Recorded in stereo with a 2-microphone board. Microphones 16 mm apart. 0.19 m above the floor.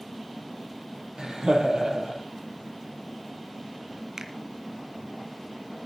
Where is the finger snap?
50° right (ahead or behind), 2 m.